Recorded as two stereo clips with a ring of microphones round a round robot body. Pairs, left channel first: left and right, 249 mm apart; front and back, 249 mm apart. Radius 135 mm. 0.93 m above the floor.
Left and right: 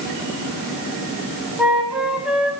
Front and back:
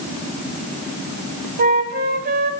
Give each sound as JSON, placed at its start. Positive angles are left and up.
{"t": 1.6, "sound": "a flute", "azimuth_deg": -175, "distance_m": 0.8}